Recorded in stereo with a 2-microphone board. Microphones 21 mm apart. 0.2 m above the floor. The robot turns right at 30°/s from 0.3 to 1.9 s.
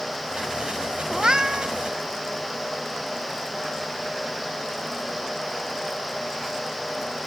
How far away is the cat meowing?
About 0.5 m.